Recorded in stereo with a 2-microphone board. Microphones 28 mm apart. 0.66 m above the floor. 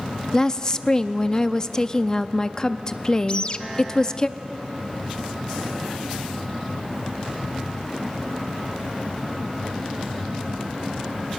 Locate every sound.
0.3 s a woman speaking: 25° left (ahead or behind), 0.5 m
3.3 s a bird: 40° left (ahead or behind), 0.6 m